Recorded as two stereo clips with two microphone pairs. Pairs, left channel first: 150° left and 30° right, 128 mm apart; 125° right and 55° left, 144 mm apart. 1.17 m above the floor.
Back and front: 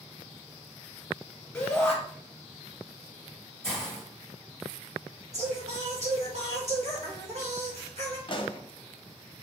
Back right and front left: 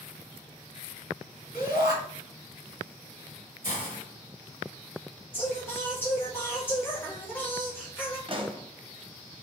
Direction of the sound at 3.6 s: 125° right.